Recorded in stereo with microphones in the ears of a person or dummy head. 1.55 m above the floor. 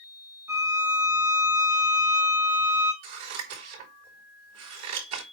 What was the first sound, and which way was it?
A violin, 15° right (ahead or behind).